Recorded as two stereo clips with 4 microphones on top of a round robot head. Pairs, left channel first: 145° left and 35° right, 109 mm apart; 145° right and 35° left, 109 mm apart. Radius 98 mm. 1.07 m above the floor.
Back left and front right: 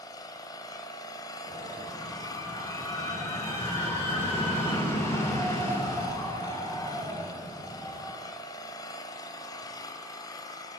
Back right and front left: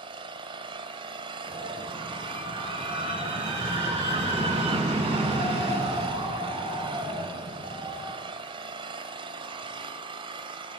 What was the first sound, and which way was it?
An engine running, 85° left.